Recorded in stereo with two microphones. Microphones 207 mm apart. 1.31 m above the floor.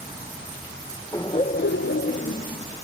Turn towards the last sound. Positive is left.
turn(degrees=30)  # may be behind; listen again after turning